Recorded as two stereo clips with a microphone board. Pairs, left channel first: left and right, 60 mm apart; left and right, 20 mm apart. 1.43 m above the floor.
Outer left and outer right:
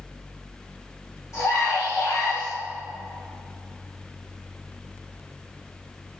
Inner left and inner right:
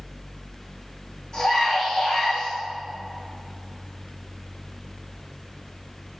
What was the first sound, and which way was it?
A scream, 55° left (ahead or behind).